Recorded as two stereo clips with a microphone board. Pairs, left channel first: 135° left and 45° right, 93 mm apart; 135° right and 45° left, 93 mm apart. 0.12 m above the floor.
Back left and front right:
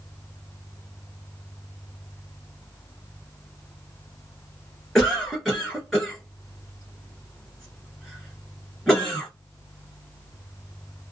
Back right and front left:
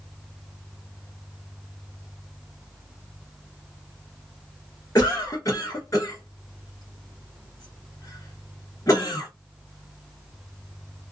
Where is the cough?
140° right, 1.4 m.